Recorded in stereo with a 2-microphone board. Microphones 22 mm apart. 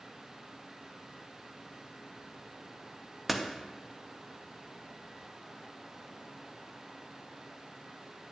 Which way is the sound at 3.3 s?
5° right (ahead or behind).